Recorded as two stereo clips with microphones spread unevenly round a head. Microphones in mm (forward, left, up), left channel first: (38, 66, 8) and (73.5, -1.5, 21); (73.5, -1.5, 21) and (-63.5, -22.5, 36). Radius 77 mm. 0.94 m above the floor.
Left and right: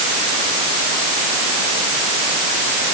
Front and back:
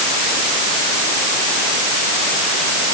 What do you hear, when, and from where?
Only background noise.